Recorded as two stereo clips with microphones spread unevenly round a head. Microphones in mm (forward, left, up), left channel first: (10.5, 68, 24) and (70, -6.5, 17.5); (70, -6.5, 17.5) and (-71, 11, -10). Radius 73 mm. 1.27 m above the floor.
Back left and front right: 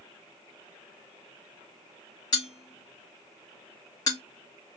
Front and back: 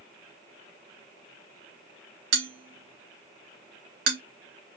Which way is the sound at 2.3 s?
165° right.